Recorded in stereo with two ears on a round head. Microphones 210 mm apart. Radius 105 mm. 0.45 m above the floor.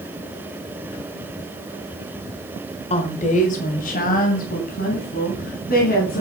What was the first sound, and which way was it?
A woman speaking, 30° left (ahead or behind).